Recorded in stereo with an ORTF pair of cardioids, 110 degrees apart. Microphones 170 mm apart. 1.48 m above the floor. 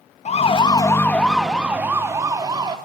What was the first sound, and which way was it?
A siren, 40° left.